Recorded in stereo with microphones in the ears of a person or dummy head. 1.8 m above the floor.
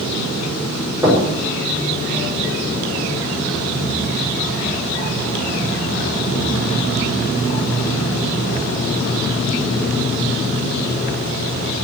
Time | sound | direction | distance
1.0 | knocking | 15° right (ahead or behind) | 5.5 m